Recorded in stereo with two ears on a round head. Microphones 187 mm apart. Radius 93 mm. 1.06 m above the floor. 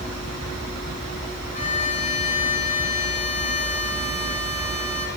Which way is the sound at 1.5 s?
35° left (ahead or behind).